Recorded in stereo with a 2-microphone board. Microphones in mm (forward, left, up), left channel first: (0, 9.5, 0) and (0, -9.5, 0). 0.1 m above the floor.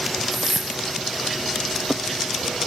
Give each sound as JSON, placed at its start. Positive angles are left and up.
{"t": 0.3, "sound": "a whoosh", "side_deg": -35, "distance_m": 0.9}